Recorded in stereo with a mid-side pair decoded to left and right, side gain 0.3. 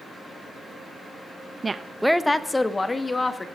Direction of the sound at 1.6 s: 40° right.